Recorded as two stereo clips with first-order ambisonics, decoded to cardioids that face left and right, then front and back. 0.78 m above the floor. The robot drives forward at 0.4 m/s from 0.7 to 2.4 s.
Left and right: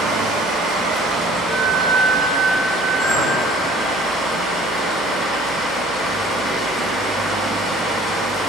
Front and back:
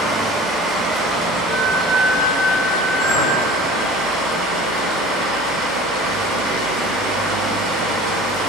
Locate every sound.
0.0 s running water: 125° right, 1.0 m; by 8.5 s 150° right, 1.5 m
1.5 s a flute: 165° right, 1.2 m
3.0 s a clink: 135° right, 2.5 m